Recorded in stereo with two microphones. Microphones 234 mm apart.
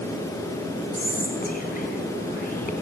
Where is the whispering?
40° left (ahead or behind), 4 m.